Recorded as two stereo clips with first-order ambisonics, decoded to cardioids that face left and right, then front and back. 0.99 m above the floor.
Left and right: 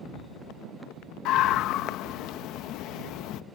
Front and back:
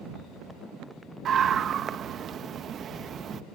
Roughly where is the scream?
Behind left.